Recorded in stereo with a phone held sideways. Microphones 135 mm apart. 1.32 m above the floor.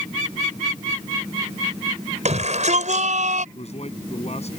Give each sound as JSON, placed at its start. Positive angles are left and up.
{"t": 2.2, "sound": "a shout", "side_deg": -60}
{"t": 3.5, "sound": "a man speaking", "side_deg": 50}